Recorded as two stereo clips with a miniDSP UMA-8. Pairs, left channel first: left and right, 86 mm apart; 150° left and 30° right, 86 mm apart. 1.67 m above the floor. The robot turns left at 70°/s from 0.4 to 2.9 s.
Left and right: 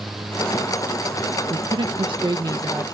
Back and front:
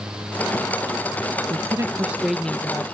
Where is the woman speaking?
60° right; by 2.8 s 155° right.